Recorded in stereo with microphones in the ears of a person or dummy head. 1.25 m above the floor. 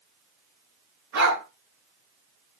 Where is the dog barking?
75° right (ahead or behind), 4.5 m.